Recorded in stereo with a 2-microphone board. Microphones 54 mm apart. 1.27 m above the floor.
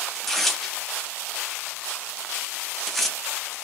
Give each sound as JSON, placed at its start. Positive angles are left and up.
{"t": 0.1, "sound": "tearing paper", "side_deg": 5, "distance_m": 0.6}